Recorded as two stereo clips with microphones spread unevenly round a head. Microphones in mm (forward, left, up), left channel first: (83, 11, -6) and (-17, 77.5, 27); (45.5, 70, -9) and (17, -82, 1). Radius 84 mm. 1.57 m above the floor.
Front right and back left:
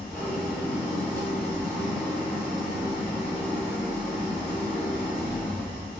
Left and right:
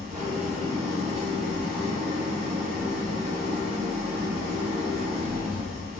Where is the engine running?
130° right, 1.5 m.